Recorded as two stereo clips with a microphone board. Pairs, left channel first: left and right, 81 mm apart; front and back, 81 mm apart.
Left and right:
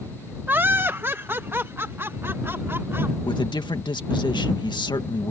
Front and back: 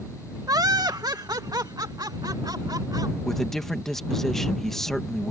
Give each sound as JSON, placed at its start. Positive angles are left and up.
{"t": 0.5, "sound": "laughter", "azimuth_deg": -150}
{"t": 3.2, "sound": "a man speaking", "azimuth_deg": 85}